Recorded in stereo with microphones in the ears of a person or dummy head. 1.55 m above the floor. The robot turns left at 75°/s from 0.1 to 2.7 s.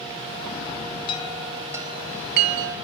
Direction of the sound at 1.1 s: 35° left (ahead or behind).